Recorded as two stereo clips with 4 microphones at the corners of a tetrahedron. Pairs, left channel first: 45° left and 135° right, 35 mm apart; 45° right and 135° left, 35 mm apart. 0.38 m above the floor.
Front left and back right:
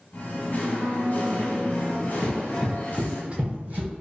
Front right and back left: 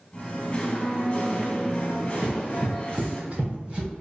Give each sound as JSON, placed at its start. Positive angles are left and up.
{"t": 0.1, "sound": "singing", "azimuth_deg": 10, "distance_m": 0.7}
{"t": 2.2, "sound": "running footsteps", "azimuth_deg": 90, "distance_m": 0.6}